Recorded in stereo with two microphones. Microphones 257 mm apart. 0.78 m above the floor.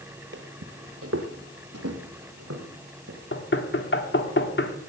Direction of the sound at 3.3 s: 50° left (ahead or behind).